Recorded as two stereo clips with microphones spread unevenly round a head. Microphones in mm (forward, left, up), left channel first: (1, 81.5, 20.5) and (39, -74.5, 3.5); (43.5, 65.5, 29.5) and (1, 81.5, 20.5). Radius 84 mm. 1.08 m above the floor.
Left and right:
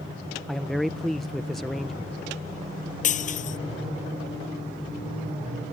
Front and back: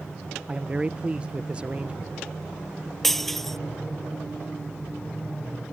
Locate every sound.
0.5 s a man speaking: 160° right
3.0 s breaking glass: 60° left